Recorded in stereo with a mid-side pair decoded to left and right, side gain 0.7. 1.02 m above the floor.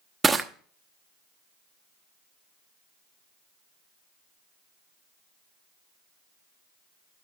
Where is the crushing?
20° right, 0.9 m.